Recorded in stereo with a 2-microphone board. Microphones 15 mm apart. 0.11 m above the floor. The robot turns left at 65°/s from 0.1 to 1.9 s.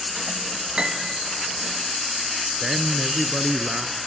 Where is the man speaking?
25° right (ahead or behind), 1.8 m.